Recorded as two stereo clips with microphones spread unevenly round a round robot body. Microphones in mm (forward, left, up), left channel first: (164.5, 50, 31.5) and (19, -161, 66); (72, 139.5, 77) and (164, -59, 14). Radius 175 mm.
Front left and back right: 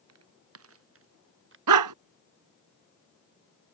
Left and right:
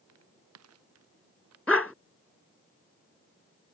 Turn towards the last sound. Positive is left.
turn(degrees=-160)